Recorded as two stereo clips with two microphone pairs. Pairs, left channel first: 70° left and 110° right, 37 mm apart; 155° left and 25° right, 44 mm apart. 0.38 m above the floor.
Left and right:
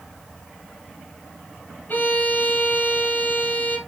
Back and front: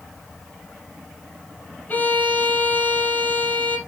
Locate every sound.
1.9 s a violin: 100° left, 3.5 m